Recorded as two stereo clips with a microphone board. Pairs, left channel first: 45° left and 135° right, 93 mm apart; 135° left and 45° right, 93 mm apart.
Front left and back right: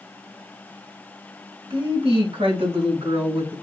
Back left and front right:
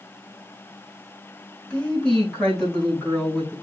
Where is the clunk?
I don't hear a clunk.